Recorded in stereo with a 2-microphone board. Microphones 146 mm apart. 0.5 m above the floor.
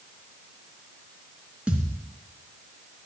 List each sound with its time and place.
1.7 s a thud: 10° right (ahead or behind), 3 m